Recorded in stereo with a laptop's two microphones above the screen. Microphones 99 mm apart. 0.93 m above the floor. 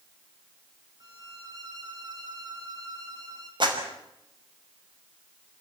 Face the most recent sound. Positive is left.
turn(degrees=-55)  # may be behind; listen again after turning